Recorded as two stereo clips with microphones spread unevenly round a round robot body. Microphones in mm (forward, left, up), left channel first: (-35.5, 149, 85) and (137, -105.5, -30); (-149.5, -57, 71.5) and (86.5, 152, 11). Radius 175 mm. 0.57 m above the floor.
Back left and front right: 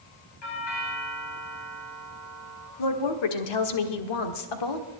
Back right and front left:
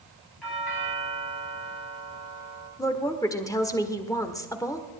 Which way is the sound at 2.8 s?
135° left.